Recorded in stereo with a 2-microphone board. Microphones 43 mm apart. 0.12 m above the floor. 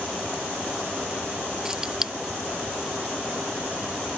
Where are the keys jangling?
15° right (ahead or behind).